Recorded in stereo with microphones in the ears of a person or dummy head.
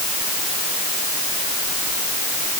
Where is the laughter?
I don't hear laughter.